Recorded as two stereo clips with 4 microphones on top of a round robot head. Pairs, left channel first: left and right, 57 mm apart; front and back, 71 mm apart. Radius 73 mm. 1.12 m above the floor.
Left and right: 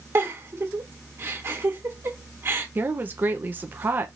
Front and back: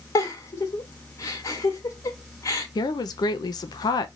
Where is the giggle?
45° right, 1.5 m.